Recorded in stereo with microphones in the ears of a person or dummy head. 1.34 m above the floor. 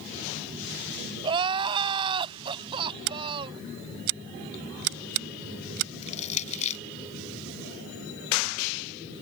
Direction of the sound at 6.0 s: 40° left (ahead or behind).